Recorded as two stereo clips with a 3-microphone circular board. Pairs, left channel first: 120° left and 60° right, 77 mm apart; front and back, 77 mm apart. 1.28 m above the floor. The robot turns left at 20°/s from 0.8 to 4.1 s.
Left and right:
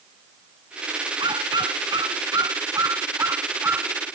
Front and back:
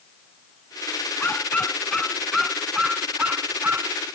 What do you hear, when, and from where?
1.2 s a dog barking: 65° right; by 4.0 s 120° right